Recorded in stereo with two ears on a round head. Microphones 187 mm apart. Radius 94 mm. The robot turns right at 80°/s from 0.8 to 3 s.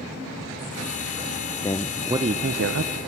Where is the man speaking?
160° left, 0.6 m; by 3.0 s 95° right, 0.6 m.